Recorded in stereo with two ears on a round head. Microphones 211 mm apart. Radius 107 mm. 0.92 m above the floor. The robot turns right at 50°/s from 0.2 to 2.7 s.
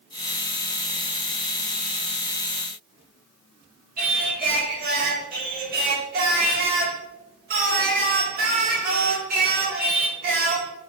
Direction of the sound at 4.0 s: 40° right (ahead or behind).